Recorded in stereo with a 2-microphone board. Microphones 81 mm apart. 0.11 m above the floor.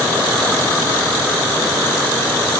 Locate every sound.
Only background noise.